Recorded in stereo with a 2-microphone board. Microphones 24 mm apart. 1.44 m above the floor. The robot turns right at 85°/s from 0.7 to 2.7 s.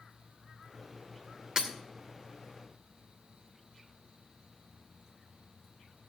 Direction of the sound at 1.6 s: 30° right (ahead or behind).